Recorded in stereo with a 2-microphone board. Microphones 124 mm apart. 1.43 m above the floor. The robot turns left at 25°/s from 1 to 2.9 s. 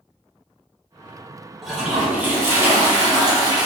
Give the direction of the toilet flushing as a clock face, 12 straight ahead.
12 o'clock.